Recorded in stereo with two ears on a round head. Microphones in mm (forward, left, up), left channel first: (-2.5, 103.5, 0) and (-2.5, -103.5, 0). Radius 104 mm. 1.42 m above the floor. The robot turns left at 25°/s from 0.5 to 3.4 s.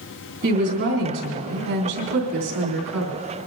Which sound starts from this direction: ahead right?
A woman speaking, at 0.4 s.